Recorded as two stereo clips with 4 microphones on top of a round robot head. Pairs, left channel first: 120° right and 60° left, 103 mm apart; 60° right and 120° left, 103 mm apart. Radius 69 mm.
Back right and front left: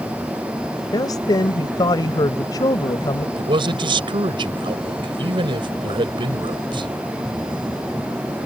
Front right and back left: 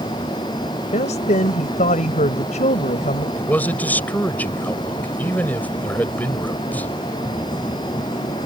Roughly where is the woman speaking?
Right.